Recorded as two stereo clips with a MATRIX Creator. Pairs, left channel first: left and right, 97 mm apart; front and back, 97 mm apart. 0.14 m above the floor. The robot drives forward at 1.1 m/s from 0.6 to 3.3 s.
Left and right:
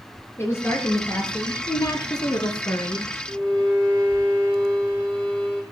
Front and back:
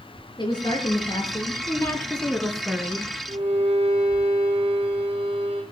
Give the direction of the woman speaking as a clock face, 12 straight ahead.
11 o'clock.